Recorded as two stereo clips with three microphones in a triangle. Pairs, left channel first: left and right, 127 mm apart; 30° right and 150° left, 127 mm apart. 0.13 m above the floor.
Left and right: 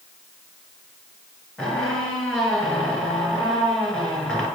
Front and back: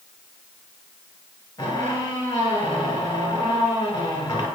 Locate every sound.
1.6 s a squeak: 5° left, 0.9 m